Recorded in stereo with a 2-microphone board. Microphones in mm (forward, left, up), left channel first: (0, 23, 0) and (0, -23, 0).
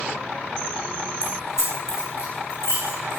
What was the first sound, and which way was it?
Keys jangling, 80° left.